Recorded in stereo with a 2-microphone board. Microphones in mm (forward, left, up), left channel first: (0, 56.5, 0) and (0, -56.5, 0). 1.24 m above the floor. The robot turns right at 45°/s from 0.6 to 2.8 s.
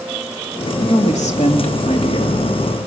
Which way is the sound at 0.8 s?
65° left.